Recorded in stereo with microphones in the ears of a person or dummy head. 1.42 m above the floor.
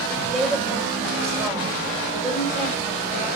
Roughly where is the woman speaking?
Centre.